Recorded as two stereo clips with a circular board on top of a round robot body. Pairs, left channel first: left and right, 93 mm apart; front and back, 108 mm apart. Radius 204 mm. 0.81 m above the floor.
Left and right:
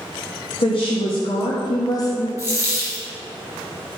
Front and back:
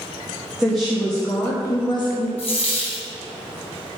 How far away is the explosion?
No explosion in this recording.